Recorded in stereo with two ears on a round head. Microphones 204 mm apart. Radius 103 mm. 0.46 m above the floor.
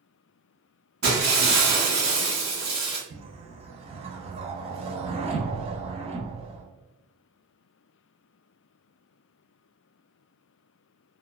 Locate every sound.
1.0 s breaking glass: 50° right (ahead or behind), 1.8 m
3.1 s a whoosh: 25° right (ahead or behind), 0.6 m